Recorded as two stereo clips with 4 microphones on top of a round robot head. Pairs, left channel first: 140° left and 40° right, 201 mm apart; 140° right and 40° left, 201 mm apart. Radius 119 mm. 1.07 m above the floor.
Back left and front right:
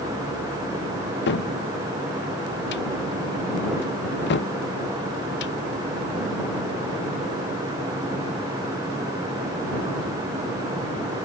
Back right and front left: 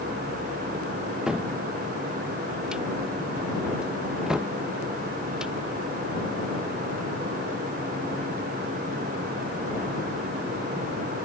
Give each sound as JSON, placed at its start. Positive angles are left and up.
{"t": 1.3, "sound": "a cupboard door", "azimuth_deg": 125}